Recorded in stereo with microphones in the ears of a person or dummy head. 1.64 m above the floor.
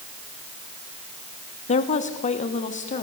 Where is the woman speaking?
40° left (ahead or behind), 2.5 m; by 3.0 s 35° left (ahead or behind), 3.5 m.